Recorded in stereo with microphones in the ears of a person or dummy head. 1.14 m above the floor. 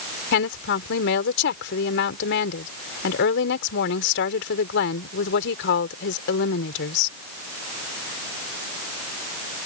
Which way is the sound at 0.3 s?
65° left (ahead or behind).